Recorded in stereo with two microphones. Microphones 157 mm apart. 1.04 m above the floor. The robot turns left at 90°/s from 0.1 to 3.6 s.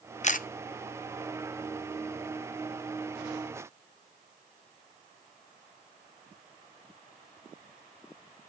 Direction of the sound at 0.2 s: 50° left (ahead or behind).